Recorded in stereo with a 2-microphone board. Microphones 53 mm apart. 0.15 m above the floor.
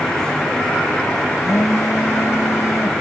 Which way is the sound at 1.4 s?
65° left (ahead or behind).